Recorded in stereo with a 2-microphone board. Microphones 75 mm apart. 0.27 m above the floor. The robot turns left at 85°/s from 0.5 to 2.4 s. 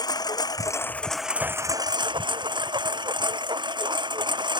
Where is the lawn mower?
60° left; by 4.6 s 105° right.